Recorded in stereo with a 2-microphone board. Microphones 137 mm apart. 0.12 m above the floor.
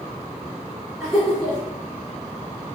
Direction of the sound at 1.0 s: Centre (ahead or behind).